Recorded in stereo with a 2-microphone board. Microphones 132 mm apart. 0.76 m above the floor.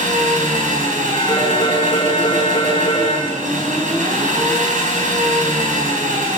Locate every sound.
0.0 s an engine running: 75° right (ahead or behind), 4 m
1.1 s a phone ringing: 35° left (ahead or behind), 7 m